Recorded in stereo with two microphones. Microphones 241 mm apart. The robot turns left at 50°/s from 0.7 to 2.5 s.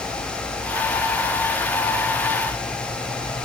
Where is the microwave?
No microwave in this recording.